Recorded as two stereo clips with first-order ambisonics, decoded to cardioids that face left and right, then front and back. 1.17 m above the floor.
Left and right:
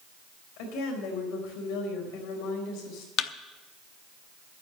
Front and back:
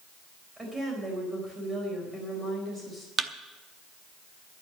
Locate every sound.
0.6 s a woman speaking: 100° left, 4.5 m
3.2 s a thud: 115° left, 0.7 m